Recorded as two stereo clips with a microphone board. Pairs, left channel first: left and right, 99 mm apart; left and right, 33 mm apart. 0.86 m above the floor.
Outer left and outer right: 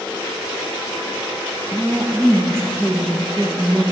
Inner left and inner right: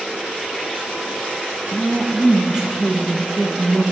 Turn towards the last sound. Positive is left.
turn(degrees=-25)  # may be behind; listen again after turning